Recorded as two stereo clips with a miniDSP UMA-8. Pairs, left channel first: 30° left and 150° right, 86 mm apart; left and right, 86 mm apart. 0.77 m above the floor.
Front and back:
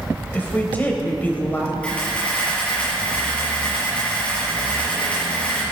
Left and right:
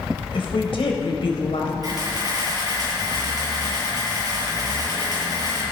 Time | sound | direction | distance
0.3 | a woman speaking | 100° left | 3.5 m
1.8 | a camera shutter | 45° right | 7 m